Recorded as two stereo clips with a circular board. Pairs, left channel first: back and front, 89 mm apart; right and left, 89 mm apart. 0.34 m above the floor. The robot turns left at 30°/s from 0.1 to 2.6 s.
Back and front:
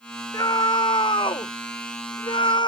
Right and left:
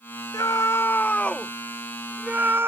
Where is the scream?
140° right; by 2.7 s 155° left.